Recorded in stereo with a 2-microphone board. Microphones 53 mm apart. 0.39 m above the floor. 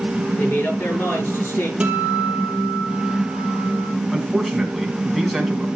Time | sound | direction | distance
0.4 | a man speaking | 45° left (ahead or behind) | 7 m
1.8 | a guitar | 20° right (ahead or behind) | 4 m
4.1 | a man speaking | centre (ahead or behind) | 4 m